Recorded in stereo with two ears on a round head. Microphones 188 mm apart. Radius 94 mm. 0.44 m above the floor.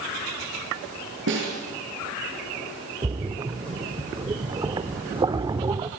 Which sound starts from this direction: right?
A snare drum, at 1.3 s.